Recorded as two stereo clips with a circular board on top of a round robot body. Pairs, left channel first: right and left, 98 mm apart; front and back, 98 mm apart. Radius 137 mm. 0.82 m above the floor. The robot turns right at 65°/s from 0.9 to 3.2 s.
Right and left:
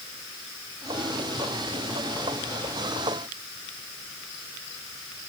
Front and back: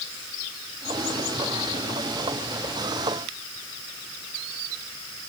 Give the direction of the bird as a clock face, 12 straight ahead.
I don't hear a bird.